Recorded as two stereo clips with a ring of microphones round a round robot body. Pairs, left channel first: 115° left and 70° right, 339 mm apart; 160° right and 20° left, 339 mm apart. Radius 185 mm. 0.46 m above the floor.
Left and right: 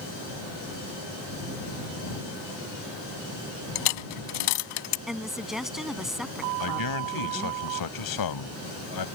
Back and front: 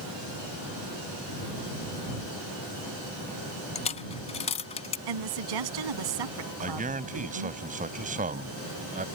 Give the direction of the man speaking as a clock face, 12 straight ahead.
9 o'clock.